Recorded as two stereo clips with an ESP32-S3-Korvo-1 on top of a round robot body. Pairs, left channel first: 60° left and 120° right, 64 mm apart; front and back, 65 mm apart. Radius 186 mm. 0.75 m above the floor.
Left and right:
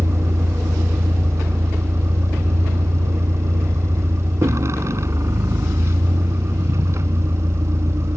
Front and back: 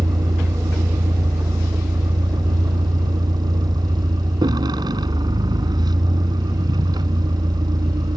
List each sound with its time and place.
0.0 s a vehicle: 170° right